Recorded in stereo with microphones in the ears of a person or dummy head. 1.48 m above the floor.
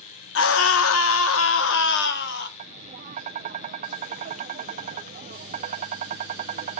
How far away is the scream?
About 1.5 m.